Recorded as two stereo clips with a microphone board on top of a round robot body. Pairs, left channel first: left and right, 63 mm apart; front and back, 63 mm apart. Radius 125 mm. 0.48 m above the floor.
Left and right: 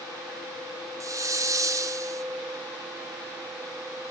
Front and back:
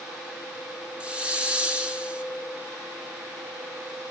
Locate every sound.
1.0 s a hiss: 110° right, 1.8 m